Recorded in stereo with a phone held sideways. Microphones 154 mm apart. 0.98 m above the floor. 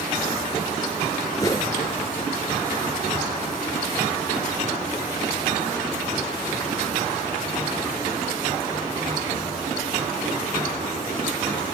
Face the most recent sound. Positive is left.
turn(degrees=25)  # may be behind; listen again after turning